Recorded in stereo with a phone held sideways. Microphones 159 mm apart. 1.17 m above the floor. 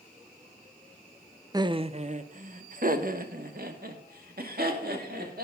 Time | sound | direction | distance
1.5 | laughter | 25° right (ahead or behind) | 0.6 m